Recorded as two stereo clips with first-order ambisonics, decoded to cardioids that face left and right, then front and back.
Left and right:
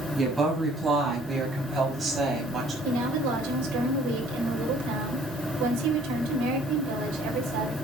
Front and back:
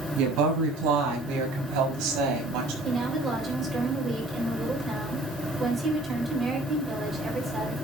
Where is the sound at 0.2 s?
170° right, 6 m; by 2.7 s 155° right, 5.5 m.